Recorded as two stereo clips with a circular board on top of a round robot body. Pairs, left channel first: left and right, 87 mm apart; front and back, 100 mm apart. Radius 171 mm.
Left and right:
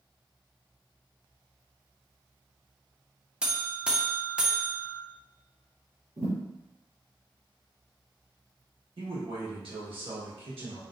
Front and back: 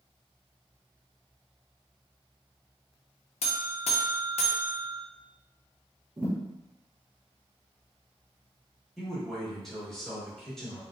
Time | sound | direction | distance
3.4 | a buzzer | 10° right | 0.6 m
6.2 | a thud | 120° right | 1.2 m
9.0 | a man speaking | 85° right | 1.3 m